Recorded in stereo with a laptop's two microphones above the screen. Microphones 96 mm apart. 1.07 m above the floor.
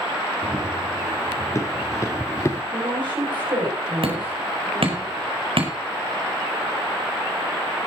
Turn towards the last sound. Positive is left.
turn(degrees=-70)  # may be behind; listen again after turning